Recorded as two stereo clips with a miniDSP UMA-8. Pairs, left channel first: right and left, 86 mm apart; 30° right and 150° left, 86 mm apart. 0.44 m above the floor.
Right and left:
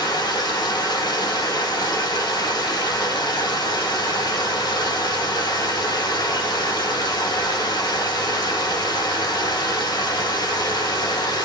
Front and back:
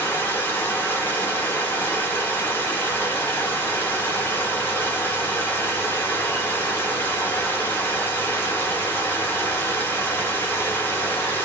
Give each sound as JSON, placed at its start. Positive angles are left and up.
{"t": 0.0, "sound": "running water", "azimuth_deg": -90, "distance_m": 0.9}